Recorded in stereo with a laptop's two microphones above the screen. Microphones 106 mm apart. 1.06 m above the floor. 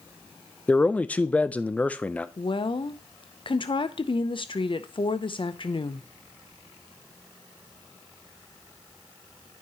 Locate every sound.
0.7 s a man speaking: 10° left (ahead or behind), 0.5 m
2.4 s a woman speaking: 50° left (ahead or behind), 0.6 m